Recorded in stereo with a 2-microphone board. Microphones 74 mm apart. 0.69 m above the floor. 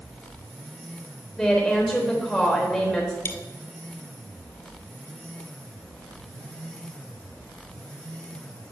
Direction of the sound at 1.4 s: Centre (ahead or behind).